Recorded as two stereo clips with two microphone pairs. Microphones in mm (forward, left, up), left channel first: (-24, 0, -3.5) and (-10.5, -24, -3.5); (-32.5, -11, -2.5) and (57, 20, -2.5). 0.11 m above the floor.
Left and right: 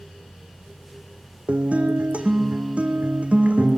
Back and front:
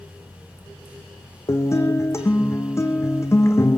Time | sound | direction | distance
1.5 | a guitar | 100° right | 1.9 m